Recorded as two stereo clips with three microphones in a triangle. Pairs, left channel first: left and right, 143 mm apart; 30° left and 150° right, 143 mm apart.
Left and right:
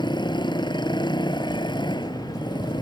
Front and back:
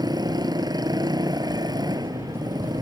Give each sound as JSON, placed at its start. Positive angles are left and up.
{"t": 0.0, "sound": "a motorcycle", "azimuth_deg": 150}